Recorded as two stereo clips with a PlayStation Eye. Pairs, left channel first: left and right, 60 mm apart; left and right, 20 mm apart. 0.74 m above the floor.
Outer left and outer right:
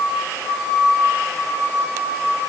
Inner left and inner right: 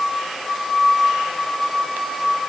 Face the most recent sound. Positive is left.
No sound to turn to.